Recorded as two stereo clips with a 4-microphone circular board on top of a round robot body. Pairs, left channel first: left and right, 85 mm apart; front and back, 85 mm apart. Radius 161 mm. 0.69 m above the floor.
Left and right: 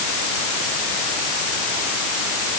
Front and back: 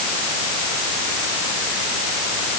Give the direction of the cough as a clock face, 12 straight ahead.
I don't hear a cough.